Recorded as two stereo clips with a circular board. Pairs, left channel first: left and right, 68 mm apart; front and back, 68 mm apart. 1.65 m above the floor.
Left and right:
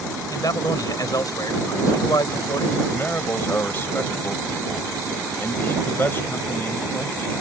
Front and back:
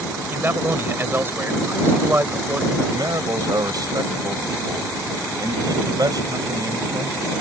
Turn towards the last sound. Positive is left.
turn(degrees=150)